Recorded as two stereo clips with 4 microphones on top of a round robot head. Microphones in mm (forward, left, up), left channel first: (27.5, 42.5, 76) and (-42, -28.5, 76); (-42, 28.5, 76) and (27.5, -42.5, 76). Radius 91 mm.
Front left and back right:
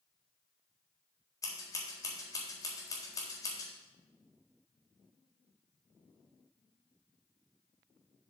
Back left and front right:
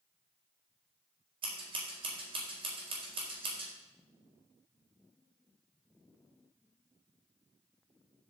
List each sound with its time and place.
1.4 s scissors: 15° right, 4 m